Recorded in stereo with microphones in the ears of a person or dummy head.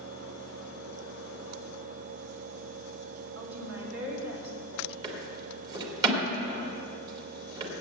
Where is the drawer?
20° right (ahead or behind), 1.9 m.